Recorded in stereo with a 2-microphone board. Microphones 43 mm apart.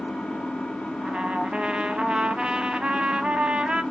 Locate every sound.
0.0 s an engine running: 25° left (ahead or behind), 0.7 m
1.0 s a trumpet: 20° right (ahead or behind), 0.5 m